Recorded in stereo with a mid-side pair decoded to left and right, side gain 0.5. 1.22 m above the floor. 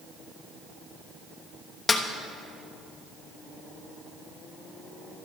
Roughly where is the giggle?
I don't hear a giggle.